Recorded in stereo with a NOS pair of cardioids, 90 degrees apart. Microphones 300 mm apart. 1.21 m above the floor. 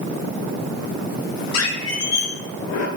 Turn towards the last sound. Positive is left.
turn(degrees=60)